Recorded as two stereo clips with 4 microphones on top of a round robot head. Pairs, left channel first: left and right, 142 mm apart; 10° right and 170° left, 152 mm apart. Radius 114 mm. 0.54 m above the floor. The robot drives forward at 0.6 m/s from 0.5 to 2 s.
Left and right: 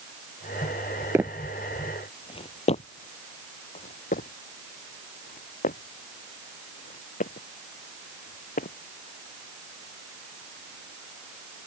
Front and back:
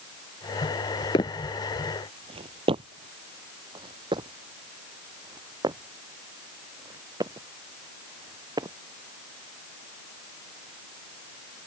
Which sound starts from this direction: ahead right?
Footsteps, at 1.1 s.